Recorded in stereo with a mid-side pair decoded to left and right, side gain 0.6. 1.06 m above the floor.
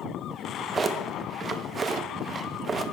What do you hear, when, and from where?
0.3 s a drawer: 30° right, 0.6 m